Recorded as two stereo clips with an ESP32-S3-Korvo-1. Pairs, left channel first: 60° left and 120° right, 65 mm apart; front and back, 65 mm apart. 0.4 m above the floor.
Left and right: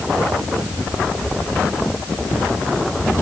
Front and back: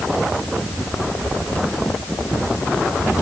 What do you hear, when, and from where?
Only background noise.